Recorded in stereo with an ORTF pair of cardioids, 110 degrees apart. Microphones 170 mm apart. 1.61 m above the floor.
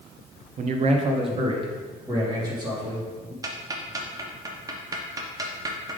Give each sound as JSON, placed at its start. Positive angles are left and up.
{"t": 0.6, "sound": "a man speaking", "azimuth_deg": -50, "distance_m": 0.8}
{"t": 3.4, "sound": "ticking", "azimuth_deg": -20, "distance_m": 1.0}